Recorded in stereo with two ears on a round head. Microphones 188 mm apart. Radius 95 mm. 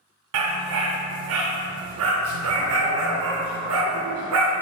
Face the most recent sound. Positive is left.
turn(degrees=-75)  # may be behind; listen again after turning